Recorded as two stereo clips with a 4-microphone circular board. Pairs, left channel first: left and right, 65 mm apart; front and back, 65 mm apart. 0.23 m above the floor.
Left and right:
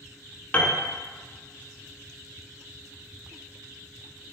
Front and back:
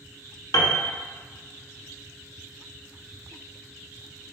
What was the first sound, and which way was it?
A piano, 25° left.